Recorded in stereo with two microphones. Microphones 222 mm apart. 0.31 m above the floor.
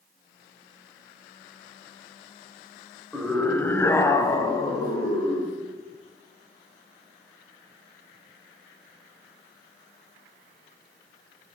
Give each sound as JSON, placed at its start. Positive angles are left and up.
{"t": 3.1, "sound": "a scream", "side_deg": 0, "distance_m": 1.6}